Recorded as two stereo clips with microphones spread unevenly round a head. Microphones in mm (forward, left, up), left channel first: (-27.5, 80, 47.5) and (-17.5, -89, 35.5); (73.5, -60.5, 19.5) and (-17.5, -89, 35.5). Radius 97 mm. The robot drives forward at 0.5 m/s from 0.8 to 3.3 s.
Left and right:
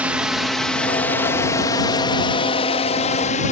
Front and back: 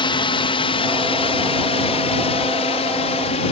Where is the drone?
5° right; by 3.5 s 45° left.